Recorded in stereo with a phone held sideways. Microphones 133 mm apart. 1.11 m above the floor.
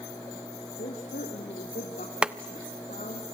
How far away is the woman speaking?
About 3.5 m.